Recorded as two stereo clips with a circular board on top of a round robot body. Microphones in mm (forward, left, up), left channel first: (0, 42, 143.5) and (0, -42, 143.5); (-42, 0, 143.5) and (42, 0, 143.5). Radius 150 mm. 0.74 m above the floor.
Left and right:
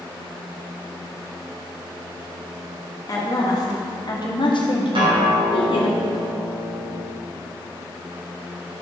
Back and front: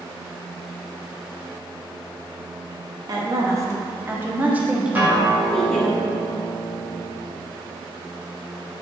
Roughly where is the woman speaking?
Ahead left.